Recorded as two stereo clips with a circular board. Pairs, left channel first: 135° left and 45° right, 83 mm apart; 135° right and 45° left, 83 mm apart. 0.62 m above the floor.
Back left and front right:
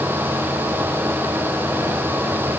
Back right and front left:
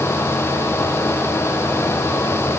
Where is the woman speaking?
No woman speaking in this recording.